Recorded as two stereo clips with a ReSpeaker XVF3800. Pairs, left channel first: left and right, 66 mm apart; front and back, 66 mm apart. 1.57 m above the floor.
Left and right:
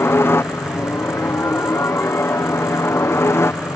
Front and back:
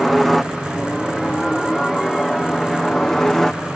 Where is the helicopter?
85° left; by 3.8 s 80° left.